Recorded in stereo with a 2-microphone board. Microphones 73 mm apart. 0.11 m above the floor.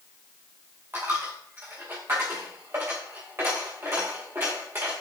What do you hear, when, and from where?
0.9 s a dropped coin: 35° right (ahead or behind), 5 m